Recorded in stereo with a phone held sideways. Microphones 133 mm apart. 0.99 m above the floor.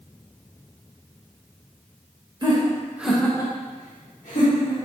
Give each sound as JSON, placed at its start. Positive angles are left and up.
{"t": 2.4, "sound": "laughter", "side_deg": -35, "distance_m": 1.0}